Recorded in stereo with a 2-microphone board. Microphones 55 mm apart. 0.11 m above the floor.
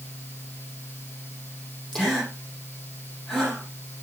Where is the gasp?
10° left (ahead or behind), 5 m.